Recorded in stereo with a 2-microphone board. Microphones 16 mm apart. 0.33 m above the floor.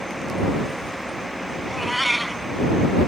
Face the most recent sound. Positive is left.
turn(degrees=0)  # may be behind; listen again after turning